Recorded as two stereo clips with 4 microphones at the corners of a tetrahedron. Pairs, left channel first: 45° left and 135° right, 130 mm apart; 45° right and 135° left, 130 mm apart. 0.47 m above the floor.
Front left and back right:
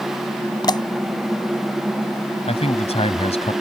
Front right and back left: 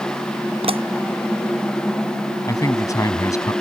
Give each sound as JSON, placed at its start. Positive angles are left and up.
{"t": 0.6, "sound": "a pop", "azimuth_deg": 100}
{"t": 2.5, "sound": "a man speaking", "azimuth_deg": 15}